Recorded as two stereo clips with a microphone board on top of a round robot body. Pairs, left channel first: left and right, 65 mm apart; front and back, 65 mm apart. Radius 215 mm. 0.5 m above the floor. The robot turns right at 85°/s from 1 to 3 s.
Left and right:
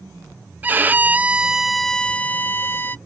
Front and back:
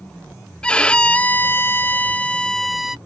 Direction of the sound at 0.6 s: 60° right.